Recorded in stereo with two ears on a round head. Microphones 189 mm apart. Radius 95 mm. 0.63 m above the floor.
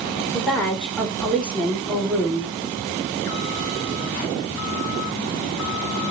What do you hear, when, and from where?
0.3 s a woman speaking: 5° left (ahead or behind), 2 m